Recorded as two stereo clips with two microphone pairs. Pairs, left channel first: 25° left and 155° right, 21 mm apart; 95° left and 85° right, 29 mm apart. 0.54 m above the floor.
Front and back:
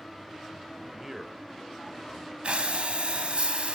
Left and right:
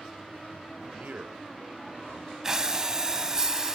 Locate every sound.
1.0 s a man speaking: 80° right, 2 m; by 2.3 s 45° right, 1.6 m
2.4 s breathing: 155° right, 1.9 m